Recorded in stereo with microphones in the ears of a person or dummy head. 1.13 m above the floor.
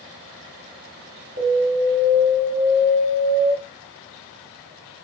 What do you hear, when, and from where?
1.4 s an alarm: 45° right (ahead or behind), 1.5 m